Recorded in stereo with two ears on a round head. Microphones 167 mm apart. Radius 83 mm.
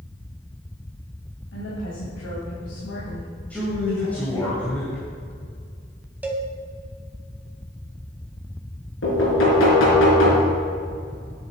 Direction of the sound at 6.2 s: 10° right (ahead or behind).